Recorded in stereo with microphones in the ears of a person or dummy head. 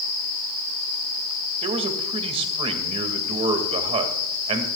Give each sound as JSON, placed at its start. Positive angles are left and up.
{"t": 1.6, "sound": "a man speaking", "side_deg": -35, "distance_m": 2.0}